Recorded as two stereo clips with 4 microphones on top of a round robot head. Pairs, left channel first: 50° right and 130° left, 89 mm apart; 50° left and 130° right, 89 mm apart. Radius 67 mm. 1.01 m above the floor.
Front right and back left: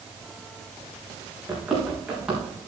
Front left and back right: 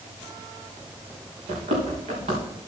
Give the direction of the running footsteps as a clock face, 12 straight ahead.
5 o'clock.